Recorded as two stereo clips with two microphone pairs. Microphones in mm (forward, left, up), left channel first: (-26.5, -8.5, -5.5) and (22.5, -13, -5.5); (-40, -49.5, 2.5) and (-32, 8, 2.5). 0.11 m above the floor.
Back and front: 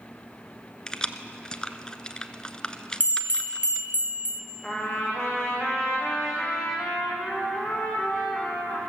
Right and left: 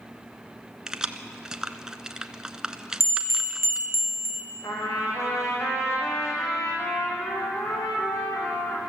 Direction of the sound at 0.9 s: 140° left.